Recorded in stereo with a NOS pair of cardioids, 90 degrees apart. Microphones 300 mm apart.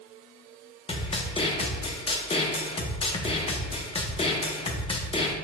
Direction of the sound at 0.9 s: 20° left.